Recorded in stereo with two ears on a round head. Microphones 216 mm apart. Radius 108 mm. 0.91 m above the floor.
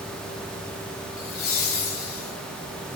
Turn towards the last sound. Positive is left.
turn(degrees=40)  # may be behind; listen again after turning